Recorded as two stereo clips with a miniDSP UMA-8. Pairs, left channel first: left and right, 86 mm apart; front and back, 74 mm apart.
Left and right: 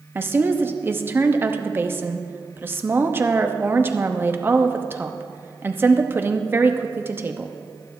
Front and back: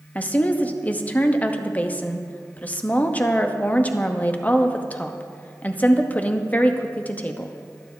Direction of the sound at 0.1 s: 50° right.